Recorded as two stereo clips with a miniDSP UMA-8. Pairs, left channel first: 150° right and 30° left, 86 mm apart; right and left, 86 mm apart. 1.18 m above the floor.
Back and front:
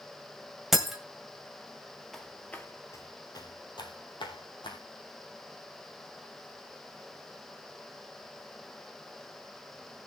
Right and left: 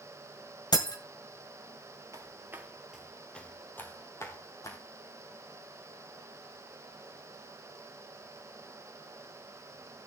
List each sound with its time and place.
0.7 s breaking glass: 55° right, 2 m
2.1 s footsteps: 120° left, 1.6 m; by 4.8 s 140° right, 3 m